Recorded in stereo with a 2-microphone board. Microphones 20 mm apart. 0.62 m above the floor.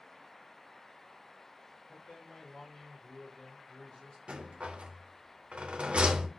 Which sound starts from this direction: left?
A man speaking, at 1.9 s.